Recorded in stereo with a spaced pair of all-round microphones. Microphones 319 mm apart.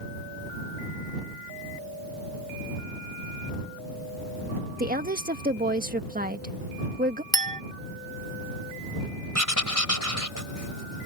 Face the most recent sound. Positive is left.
turn(degrees=70)  # may be behind; listen again after turning